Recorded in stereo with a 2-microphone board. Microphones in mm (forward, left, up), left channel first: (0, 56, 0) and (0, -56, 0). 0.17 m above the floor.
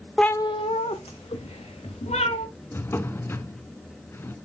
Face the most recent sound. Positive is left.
turn(degrees=20)  # may be behind; listen again after turning